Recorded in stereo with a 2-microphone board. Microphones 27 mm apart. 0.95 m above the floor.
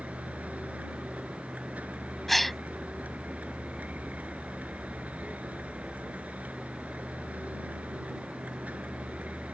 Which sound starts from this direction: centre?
A gasp, at 2.3 s.